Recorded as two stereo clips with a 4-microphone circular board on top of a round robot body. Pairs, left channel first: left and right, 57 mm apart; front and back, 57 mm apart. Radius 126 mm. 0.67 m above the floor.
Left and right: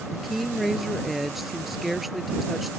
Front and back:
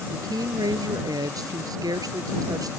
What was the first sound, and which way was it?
A woman speaking, straight behind.